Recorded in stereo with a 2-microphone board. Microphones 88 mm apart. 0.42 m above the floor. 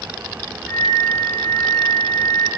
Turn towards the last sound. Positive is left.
turn(degrees=-10)  # may be behind; listen again after turning